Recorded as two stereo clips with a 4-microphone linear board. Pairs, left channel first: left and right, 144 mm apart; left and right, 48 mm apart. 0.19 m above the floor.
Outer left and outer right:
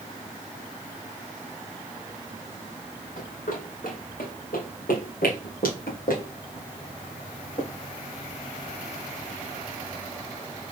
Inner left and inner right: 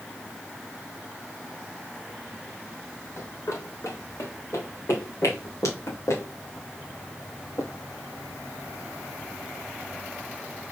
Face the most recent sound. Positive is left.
turn(degrees=70)  # may be behind; listen again after turning